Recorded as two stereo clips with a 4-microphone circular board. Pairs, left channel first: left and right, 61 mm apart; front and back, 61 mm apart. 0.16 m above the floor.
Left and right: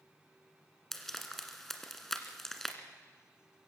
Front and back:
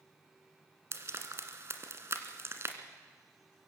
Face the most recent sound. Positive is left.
turn(degrees=175)